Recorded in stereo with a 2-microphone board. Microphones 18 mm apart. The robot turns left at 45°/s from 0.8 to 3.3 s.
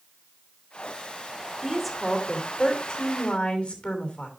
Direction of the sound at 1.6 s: 165° right.